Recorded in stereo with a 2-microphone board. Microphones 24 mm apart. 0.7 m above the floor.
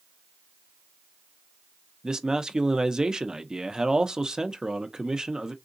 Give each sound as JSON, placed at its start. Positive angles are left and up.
{"t": 2.0, "sound": "a man speaking", "side_deg": -30, "distance_m": 0.6}